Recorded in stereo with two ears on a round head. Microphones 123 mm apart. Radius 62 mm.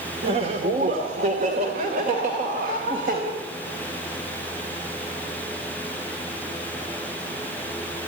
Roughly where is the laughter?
Right.